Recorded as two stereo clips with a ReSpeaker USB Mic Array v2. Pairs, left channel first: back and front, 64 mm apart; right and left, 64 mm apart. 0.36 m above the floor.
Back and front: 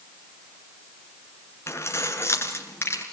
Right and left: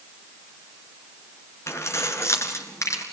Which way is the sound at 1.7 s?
135° right.